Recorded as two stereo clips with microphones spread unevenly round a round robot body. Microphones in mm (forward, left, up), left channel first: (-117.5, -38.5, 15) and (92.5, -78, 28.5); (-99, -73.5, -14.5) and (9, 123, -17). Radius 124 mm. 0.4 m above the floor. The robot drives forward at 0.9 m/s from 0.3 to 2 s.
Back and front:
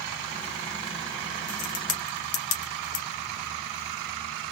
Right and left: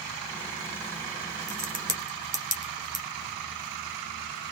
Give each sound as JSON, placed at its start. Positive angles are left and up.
{"t": 1.5, "sound": "a crack", "azimuth_deg": 120, "distance_m": 1.2}